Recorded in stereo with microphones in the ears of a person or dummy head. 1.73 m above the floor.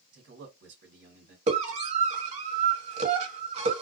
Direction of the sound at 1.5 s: 40° right (ahead or behind).